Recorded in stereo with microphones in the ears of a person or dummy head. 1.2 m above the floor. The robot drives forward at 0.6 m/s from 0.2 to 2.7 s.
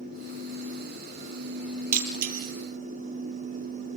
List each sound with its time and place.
1.9 s breaking glass: 50° right (ahead or behind), 3 m; by 2.5 s 55° right (ahead or behind), 3 m